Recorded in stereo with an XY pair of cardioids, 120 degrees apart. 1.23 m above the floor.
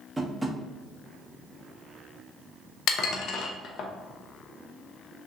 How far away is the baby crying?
I don't hear a baby crying.